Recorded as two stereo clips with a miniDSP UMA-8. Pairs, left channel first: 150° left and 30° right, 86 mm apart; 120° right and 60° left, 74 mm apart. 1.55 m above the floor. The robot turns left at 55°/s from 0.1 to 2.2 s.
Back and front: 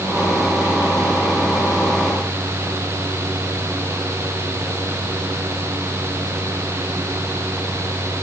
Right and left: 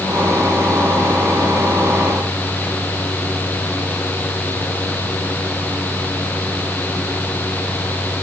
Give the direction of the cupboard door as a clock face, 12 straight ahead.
No cupboard door in this recording.